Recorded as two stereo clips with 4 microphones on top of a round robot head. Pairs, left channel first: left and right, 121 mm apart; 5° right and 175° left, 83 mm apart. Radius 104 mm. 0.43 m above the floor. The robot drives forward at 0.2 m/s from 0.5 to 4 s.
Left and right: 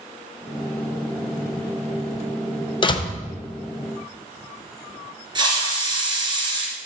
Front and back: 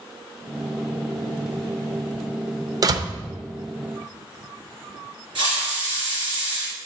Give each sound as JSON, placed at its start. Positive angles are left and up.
{"t": 2.8, "sound": "a door slam", "azimuth_deg": 135, "distance_m": 0.8}
{"t": 5.3, "sound": "a hiss", "azimuth_deg": -145, "distance_m": 2.5}